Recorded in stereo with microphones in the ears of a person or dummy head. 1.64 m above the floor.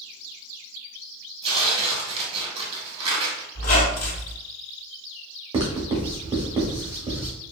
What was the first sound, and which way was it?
Tearing paper, 30° right (ahead or behind).